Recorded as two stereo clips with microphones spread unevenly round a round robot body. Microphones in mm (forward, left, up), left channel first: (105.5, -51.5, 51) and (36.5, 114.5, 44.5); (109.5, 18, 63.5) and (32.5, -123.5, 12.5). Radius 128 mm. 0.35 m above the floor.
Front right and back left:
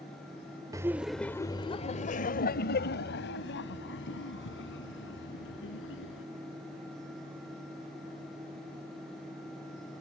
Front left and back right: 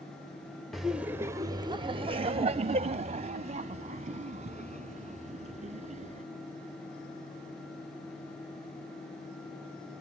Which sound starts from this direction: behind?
Laughter, at 0.7 s.